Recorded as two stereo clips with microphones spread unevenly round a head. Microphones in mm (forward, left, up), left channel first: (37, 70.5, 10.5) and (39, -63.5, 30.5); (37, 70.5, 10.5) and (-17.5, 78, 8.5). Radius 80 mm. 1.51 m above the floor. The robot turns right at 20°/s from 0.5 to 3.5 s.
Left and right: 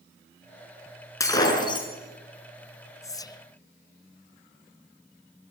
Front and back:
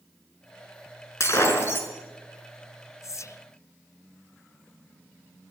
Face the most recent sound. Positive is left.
turn(degrees=35)